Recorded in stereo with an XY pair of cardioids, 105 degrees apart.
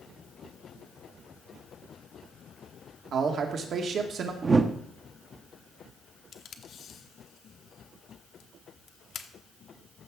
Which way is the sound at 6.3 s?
60° left.